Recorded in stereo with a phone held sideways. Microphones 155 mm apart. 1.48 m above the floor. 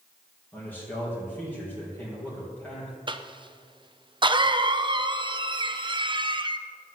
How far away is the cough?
About 0.5 m.